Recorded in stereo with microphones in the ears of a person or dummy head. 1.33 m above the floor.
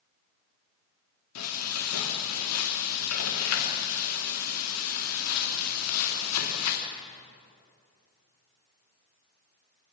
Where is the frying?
90° left, 2.5 m.